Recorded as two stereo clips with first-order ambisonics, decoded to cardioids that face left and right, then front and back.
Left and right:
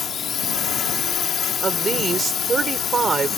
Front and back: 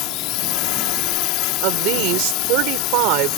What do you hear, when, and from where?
0.0 s a drone: 25° left
1.6 s a woman speaking: 160° right